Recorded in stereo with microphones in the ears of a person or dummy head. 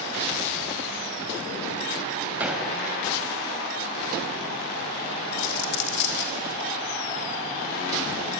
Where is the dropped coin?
60° left (ahead or behind), 1.4 m.